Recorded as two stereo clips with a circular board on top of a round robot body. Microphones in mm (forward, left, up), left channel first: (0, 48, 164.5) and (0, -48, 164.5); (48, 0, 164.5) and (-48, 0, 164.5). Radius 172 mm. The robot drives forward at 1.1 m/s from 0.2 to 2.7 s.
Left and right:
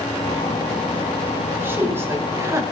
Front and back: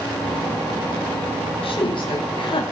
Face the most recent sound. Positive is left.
turn(degrees=-30)